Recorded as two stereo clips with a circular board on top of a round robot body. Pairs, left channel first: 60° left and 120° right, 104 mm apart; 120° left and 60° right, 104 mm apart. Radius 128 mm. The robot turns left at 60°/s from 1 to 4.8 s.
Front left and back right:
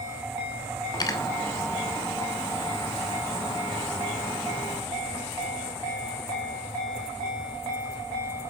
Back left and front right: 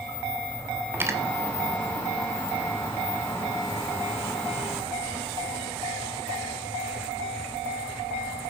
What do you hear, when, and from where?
0.9 s cutlery clinking: 10° left, 2.5 m; by 1.2 s 5° right, 2.5 m